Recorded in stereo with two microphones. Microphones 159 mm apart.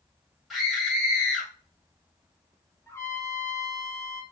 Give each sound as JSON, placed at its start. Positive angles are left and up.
{"t": 0.5, "sound": "a scream", "side_deg": 0, "distance_m": 1.5}
{"t": 2.9, "sound": "a trumpet", "side_deg": 20, "distance_m": 0.8}